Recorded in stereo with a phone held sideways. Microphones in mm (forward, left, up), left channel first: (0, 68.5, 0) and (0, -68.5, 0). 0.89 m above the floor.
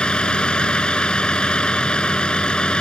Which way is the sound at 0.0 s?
5° left (ahead or behind).